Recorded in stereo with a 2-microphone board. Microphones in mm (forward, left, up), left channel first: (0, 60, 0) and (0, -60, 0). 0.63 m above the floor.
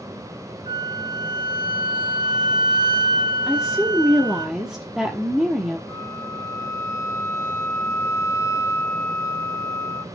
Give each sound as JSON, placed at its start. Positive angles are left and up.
{"t": 0.7, "sound": "a flute", "side_deg": -45, "distance_m": 0.6}
{"t": 3.5, "sound": "a woman speaking", "side_deg": -5, "distance_m": 1.1}
{"t": 5.9, "sound": "a flute", "side_deg": 25, "distance_m": 0.8}